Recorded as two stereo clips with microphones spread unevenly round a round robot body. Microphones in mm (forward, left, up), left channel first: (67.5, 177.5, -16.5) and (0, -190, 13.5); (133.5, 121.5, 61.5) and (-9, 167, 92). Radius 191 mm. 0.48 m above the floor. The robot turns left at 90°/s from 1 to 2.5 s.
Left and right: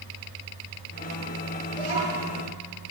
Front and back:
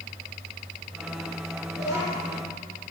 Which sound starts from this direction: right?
A child speaking, at 1.7 s.